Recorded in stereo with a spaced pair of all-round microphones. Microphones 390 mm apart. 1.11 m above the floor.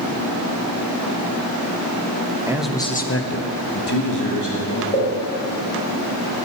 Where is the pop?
30° left (ahead or behind), 3.5 m.